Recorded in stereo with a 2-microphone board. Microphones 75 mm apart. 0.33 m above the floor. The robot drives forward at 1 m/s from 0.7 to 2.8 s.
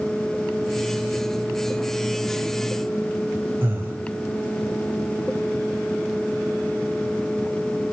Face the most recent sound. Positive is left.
turn(degrees=-30)  # may be behind; listen again after turning